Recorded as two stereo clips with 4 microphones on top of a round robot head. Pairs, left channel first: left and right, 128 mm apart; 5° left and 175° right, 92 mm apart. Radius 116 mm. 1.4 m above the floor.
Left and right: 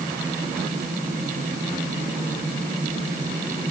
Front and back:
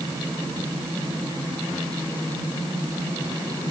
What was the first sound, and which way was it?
Only background noise.